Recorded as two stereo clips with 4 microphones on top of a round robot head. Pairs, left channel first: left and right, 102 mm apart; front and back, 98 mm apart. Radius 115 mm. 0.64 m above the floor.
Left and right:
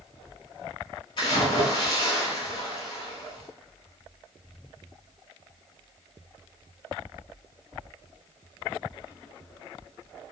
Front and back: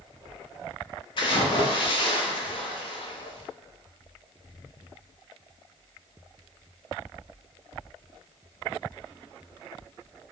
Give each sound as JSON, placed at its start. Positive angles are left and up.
{"t": 1.2, "sound": "a splash", "azimuth_deg": 35, "distance_m": 0.8}